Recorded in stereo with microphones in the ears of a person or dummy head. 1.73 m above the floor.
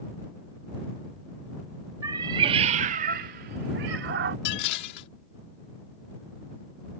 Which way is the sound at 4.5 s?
60° left (ahead or behind).